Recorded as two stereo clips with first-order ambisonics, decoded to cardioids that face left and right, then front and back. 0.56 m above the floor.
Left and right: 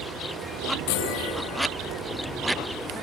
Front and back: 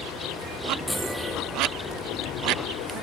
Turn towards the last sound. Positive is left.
turn(degrees=90)